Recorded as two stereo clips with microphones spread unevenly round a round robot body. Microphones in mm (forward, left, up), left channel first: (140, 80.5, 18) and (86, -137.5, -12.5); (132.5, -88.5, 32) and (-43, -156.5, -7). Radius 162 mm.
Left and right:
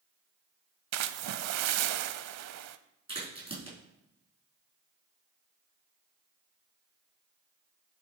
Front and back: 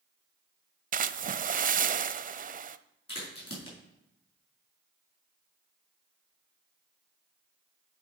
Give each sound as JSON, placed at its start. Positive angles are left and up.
{"t": 0.9, "sound": "a splash", "azimuth_deg": -105, "distance_m": 0.5}
{"t": 3.1, "sound": "a crack", "azimuth_deg": -40, "distance_m": 5.0}